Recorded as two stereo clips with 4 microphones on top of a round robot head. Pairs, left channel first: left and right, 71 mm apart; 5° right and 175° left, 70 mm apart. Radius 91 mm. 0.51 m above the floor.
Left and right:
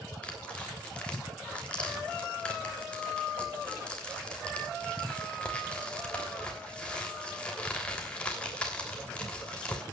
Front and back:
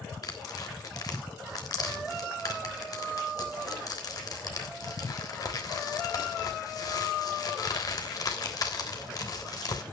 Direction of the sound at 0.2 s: 15° left.